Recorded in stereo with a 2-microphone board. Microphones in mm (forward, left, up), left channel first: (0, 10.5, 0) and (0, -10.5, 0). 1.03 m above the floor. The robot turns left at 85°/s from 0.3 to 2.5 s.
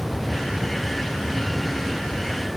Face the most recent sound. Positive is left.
No sound to turn to.